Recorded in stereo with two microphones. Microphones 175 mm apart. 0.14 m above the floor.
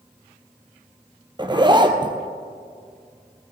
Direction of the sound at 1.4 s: 25° right (ahead or behind).